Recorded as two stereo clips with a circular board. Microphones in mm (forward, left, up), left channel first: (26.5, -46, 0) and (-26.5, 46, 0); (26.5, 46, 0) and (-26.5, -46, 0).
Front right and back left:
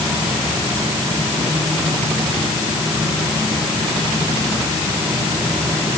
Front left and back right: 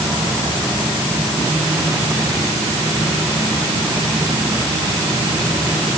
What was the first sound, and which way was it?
Only background noise.